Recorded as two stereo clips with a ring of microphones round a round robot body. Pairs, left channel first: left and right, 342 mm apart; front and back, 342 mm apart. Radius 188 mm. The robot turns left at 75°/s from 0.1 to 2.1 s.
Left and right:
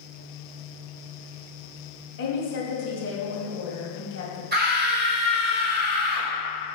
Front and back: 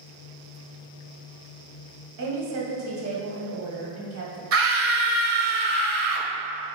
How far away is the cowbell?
I don't hear a cowbell.